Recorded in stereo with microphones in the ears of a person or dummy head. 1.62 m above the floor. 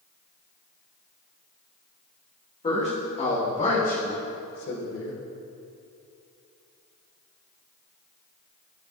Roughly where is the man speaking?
Left.